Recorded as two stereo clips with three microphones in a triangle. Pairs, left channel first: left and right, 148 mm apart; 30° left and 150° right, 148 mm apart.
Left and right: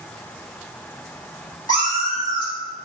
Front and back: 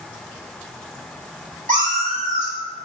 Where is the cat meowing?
140° right, 1.8 m.